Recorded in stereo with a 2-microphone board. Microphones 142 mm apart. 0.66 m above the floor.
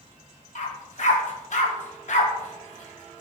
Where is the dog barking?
60° left (ahead or behind), 1.0 m.